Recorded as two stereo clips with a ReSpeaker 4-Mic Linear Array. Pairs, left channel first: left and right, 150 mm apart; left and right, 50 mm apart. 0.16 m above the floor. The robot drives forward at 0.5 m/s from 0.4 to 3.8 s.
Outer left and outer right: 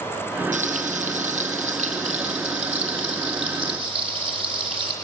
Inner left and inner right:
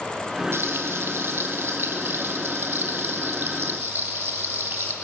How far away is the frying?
About 3 m.